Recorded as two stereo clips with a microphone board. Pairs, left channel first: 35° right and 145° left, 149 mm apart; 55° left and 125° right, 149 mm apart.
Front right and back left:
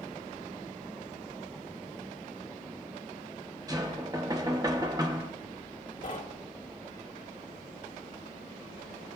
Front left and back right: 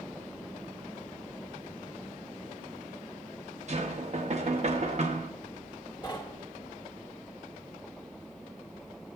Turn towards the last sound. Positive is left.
turn(degrees=-5)